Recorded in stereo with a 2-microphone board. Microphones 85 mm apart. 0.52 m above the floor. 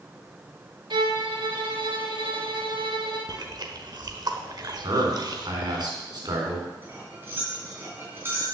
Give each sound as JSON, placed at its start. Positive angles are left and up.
{"t": 0.9, "sound": "a violin", "side_deg": -70, "distance_m": 1.6}
{"t": 3.3, "sound": "chewing", "side_deg": -55, "distance_m": 1.1}
{"t": 4.8, "sound": "a man speaking", "side_deg": -55, "distance_m": 4.0}
{"t": 6.8, "sound": "cutlery clinking", "side_deg": -25, "distance_m": 3.5}